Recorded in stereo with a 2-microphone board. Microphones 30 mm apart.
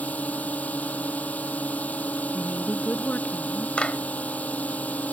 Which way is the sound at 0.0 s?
60° left (ahead or behind).